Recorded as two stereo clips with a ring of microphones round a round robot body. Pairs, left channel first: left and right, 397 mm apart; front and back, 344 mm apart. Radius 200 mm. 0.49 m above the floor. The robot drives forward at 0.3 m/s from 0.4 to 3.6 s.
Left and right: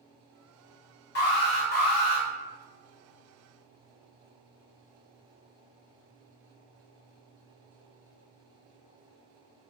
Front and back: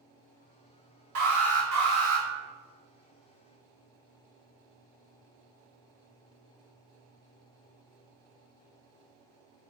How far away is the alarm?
About 1.4 m.